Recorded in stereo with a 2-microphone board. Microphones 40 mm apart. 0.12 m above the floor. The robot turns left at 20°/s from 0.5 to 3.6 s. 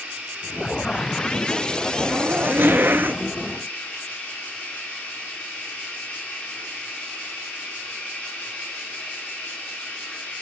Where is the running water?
160° right, 3 m; by 10.4 s 135° left, 3 m.